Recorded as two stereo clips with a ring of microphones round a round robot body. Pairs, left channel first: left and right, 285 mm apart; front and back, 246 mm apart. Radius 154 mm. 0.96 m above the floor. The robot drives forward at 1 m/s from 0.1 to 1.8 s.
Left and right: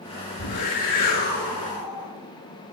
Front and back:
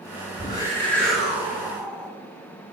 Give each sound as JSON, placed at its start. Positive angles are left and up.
{"t": 0.4, "sound": "a whoosh", "azimuth_deg": 70, "distance_m": 2.5}